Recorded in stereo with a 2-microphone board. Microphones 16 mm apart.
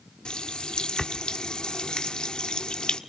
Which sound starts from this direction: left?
A running tap, at 0.2 s.